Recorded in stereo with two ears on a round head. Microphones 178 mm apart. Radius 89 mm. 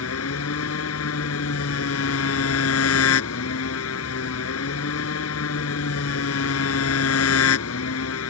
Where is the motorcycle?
85° left.